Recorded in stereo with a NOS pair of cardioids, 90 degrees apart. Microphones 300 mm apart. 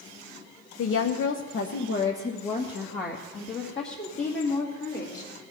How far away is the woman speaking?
About 0.8 m.